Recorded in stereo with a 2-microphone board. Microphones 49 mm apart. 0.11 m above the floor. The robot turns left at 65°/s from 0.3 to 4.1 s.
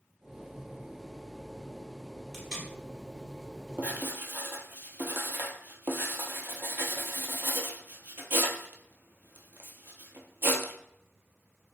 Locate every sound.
2.3 s tape being pulled: centre (ahead or behind), 1.9 m; by 2.7 s 15° left (ahead or behind), 1.9 m
3.8 s writing: 30° right (ahead or behind), 0.7 m; by 10.7 s 50° right (ahead or behind), 0.7 m